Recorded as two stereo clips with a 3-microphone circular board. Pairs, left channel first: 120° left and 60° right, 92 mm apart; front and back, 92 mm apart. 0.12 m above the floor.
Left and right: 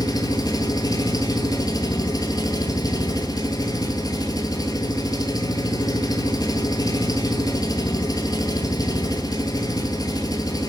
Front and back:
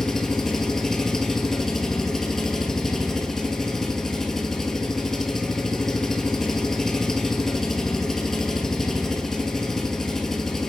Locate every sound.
0.0 s an engine running: 85° left, 0.9 m